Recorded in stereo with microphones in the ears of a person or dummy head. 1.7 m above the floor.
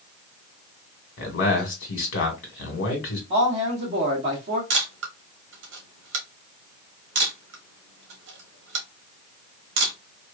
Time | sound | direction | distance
1.2 | a man speaking | 75° left (ahead or behind) | 1.4 m
3.3 | a man speaking | 40° right (ahead or behind) | 1.0 m
4.7 | a camera shutter | 75° right (ahead or behind) | 1.0 m